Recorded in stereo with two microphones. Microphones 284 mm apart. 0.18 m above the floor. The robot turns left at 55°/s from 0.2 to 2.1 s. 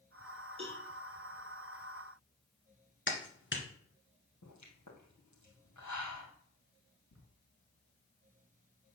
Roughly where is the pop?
Left.